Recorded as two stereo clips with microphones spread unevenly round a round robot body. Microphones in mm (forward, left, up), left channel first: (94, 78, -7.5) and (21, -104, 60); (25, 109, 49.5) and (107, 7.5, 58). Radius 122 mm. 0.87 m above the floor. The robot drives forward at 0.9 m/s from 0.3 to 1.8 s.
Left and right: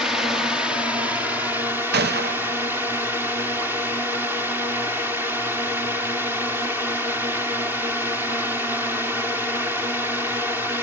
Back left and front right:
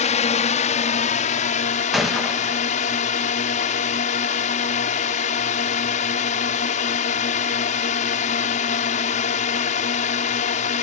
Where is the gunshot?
145° right.